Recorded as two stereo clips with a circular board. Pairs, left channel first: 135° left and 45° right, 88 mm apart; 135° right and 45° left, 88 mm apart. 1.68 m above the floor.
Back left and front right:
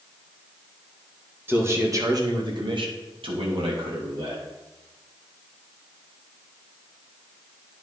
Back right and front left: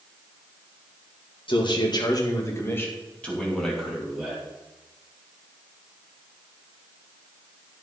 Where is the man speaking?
110° right, 2.5 m; by 4.4 s 35° right, 3.5 m.